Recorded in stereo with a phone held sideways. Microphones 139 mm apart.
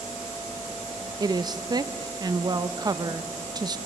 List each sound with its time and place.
1.2 s a woman speaking: 30° right (ahead or behind), 0.6 m